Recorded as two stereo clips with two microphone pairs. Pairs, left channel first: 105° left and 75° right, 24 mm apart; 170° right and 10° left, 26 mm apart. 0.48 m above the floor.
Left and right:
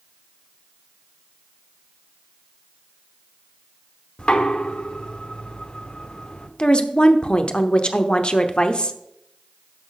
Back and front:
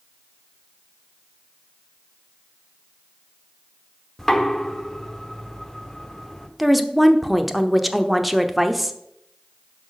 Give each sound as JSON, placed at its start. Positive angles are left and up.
{"t": 4.2, "sound": "knocking", "azimuth_deg": 115, "distance_m": 1.0}
{"t": 6.6, "sound": "a woman speaking", "azimuth_deg": 85, "distance_m": 0.8}